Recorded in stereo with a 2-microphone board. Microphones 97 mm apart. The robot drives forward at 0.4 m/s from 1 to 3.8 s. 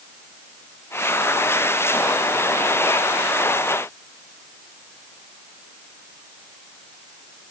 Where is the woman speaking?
I don't hear a woman speaking.